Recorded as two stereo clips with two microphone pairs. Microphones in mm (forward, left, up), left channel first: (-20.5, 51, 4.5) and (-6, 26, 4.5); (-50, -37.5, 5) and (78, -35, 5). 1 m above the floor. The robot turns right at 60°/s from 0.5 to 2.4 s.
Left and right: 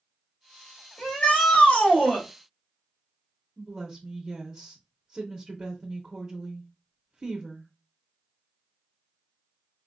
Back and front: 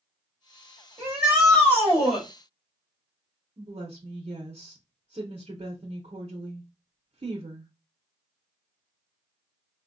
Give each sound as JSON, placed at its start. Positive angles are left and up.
{"t": 1.0, "sound": "a shout", "azimuth_deg": 65, "distance_m": 2.5}
{"t": 3.6, "sound": "a woman speaking", "azimuth_deg": 0, "distance_m": 0.8}